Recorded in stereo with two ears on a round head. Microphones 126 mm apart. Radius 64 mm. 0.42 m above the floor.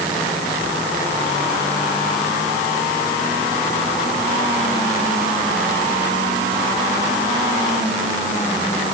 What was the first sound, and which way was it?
Only background noise.